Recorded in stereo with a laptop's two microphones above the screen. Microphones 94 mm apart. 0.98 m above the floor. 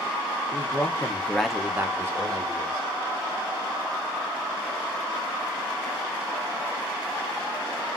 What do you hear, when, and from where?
0.5 s a man speaking: 40° left (ahead or behind), 1.0 m; by 2.9 s 35° right (ahead or behind), 1.8 m